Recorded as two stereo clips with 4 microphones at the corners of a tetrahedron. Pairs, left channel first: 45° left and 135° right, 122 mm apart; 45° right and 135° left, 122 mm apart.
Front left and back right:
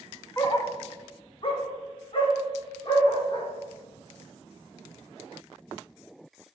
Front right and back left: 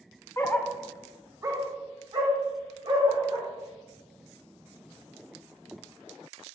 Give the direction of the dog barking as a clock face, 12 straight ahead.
12 o'clock.